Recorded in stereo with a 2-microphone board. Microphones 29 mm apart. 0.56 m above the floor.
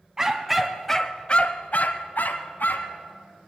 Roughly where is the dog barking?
Centre.